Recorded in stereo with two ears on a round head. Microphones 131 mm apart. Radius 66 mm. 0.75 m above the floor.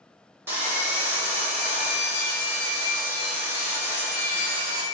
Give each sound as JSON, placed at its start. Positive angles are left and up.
{"t": 0.5, "sound": "sawing", "side_deg": -15, "distance_m": 1.0}